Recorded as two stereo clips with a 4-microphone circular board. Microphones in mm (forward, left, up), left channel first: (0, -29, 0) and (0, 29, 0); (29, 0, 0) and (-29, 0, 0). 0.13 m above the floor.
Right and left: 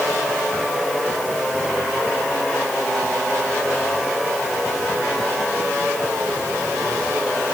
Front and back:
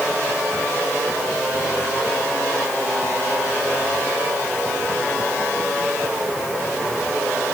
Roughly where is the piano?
I don't hear a piano.